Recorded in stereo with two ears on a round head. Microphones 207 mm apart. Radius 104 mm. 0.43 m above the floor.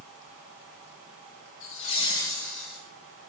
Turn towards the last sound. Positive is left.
turn(degrees=-5)  # may be behind; listen again after turning